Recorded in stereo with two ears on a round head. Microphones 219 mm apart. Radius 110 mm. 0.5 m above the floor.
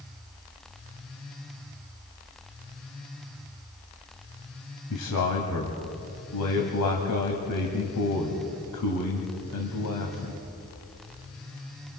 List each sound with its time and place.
4.9 s a man speaking: 75° left (ahead or behind), 2.5 m